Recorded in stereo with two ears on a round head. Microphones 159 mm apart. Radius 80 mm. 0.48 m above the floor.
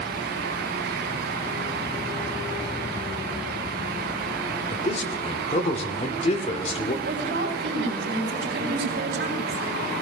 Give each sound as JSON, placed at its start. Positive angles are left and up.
{"t": 4.7, "sound": "a man speaking", "side_deg": 35, "distance_m": 1.5}
{"t": 7.0, "sound": "a woman speaking", "side_deg": -65, "distance_m": 3.5}